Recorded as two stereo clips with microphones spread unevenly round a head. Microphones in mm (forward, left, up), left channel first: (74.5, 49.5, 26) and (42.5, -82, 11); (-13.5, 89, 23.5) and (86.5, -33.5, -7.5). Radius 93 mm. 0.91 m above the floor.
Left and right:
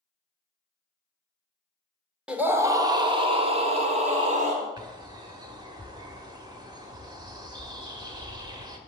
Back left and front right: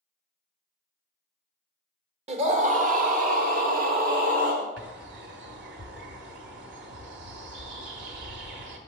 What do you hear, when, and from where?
2.3 s a scream: 25° right, 1.1 m; by 4.7 s 80° right, 2.5 m
4.8 s a bird: 45° right, 1.1 m